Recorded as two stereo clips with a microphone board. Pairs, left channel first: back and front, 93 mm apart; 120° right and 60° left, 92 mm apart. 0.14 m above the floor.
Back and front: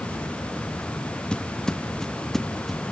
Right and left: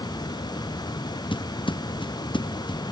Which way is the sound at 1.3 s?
100° right.